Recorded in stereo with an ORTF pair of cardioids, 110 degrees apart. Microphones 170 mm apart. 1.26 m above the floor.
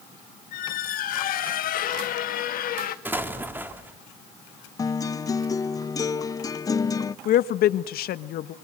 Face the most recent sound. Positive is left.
turn(degrees=65)